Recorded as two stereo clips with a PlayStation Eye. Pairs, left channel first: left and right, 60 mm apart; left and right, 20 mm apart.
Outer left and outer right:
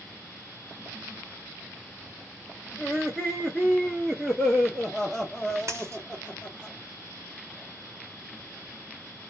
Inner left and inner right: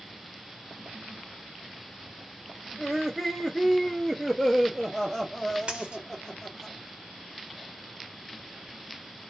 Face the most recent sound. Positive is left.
turn(degrees=-55)  # may be behind; listen again after turning